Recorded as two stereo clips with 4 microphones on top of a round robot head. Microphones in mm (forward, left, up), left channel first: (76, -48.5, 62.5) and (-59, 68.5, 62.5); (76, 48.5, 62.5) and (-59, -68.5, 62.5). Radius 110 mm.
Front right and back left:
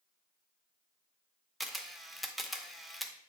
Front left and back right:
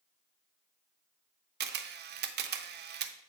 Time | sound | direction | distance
1.6 | a camera shutter | 130° right | 0.6 m